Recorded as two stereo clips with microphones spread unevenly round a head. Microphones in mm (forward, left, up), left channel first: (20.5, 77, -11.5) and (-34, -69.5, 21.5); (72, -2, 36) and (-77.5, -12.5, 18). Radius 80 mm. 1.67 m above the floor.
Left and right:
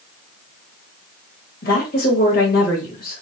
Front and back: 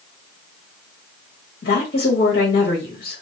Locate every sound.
1.6 s a woman speaking: 30° left, 1.6 m